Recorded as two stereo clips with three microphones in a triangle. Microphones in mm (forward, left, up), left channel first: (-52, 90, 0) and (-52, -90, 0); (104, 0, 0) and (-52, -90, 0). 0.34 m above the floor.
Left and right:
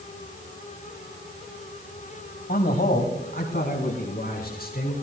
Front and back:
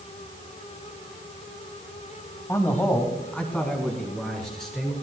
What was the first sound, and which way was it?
A man speaking, 100° left.